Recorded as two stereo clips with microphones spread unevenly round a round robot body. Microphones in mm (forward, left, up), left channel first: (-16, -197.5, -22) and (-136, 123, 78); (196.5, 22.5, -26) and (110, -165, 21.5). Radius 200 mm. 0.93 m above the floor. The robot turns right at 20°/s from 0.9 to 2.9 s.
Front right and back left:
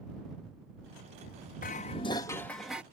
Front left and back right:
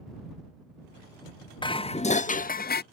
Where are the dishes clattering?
5° right; by 2.8 s 20° left.